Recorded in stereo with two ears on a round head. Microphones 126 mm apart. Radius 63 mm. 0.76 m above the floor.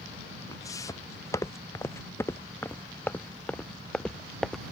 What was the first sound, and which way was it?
Footsteps, 25° left (ahead or behind).